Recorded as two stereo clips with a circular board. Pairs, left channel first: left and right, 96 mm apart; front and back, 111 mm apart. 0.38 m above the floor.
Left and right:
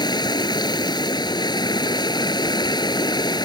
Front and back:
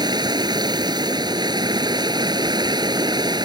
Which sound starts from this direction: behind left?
Running water, at 0.0 s.